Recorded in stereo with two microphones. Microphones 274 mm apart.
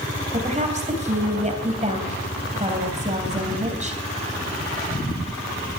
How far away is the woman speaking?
About 3 m.